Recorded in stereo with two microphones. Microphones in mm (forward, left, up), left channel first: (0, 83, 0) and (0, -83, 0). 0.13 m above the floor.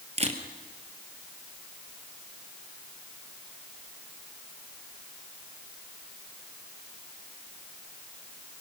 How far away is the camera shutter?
About 2.5 m.